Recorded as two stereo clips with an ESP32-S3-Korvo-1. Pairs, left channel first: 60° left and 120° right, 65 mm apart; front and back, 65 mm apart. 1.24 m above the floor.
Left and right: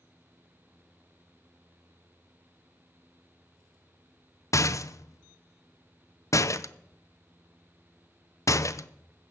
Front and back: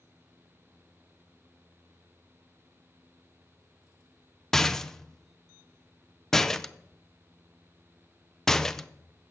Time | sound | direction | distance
4.5 | a rattle | 85° left | 0.5 m